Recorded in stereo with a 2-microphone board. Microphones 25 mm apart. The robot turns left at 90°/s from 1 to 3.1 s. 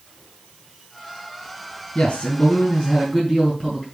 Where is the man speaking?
130° left, 3.5 m; by 3.9 s 30° left, 3.5 m.